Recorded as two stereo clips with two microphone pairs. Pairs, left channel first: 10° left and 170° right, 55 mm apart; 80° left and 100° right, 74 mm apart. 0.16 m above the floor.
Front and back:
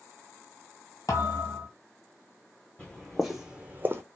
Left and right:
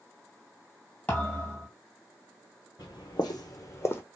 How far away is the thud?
About 1.2 m.